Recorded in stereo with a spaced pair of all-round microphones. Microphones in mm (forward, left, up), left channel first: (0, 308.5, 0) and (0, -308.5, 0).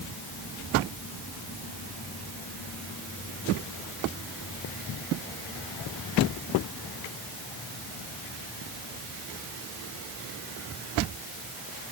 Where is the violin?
I don't hear a violin.